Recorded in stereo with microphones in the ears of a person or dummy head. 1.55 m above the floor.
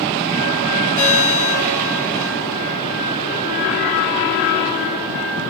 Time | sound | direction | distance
1.0 | a ringtone | 80° left | 10 m